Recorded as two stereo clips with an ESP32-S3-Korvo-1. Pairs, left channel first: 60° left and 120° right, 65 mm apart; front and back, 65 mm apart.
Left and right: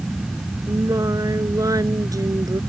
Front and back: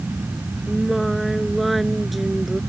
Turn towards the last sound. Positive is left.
turn(degrees=-90)